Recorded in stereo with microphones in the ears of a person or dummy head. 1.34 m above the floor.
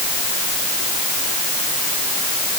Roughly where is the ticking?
No ticking in this recording.